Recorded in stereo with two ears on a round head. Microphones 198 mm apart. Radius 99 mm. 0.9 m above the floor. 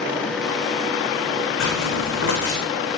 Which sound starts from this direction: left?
Footsteps, at 1.6 s.